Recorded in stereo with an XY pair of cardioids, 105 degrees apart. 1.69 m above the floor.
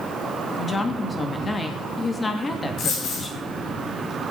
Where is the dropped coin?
65° left, 4.5 m.